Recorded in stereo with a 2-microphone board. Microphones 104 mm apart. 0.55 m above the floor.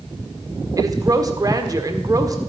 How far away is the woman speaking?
About 1.5 m.